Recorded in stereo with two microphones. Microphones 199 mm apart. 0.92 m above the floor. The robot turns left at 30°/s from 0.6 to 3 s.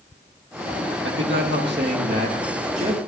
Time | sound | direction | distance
1.1 | a man speaking | 90° right | 1.5 m